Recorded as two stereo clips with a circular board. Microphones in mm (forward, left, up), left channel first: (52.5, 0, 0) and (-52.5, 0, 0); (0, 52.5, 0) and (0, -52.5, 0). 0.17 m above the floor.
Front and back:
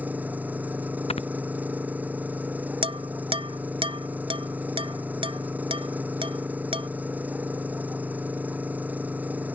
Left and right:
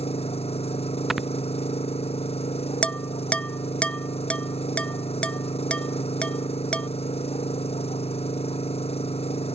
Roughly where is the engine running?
Left.